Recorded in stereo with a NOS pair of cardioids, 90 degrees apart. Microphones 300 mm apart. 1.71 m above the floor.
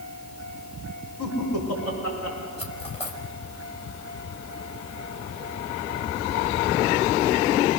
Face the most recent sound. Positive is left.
turn(degrees=20)